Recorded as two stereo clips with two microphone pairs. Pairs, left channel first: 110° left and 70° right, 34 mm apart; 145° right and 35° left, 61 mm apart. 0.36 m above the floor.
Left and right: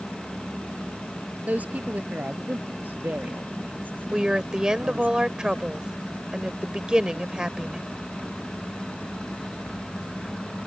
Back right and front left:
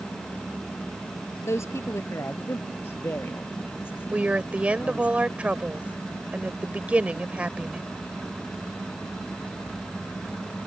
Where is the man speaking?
105° right; by 5.1 s 85° right.